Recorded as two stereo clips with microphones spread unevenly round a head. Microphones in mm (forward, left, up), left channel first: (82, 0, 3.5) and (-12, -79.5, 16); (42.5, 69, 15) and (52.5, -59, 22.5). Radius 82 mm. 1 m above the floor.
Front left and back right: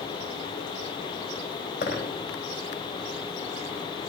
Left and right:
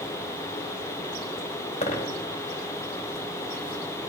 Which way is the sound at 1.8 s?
60° left.